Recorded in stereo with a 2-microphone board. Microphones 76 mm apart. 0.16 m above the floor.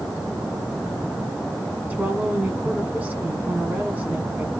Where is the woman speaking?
20° right (ahead or behind), 1.6 m.